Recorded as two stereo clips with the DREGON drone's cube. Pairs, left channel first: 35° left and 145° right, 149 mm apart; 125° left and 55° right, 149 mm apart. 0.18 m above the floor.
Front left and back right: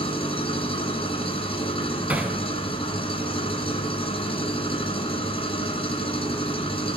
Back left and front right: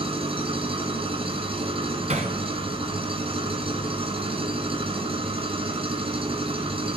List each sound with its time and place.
0.0 s an engine running: 10° right, 2.0 m
2.1 s hammering: 70° right, 1.5 m